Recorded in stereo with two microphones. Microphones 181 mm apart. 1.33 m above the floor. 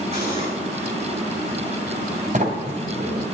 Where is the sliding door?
40° right (ahead or behind), 2.5 m.